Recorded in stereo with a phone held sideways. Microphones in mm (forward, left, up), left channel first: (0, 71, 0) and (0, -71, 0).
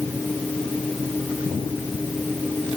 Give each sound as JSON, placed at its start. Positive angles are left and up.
{"t": 0.0, "sound": "a fan", "side_deg": 5}